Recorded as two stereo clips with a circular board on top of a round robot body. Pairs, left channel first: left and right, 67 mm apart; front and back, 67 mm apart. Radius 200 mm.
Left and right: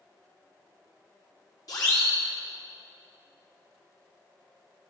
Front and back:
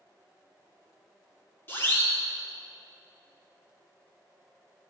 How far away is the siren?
About 6 m.